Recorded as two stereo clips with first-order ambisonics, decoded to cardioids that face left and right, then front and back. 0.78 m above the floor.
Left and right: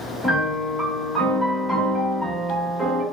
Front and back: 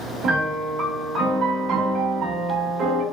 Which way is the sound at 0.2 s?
Straight behind.